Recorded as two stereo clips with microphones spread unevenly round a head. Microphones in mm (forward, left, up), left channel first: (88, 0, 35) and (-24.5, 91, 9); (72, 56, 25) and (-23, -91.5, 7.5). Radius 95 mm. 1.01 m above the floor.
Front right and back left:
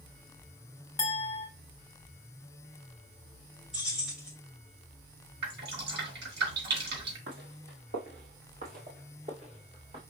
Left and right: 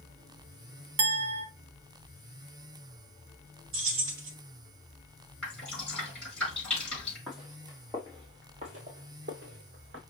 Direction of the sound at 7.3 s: 145° left.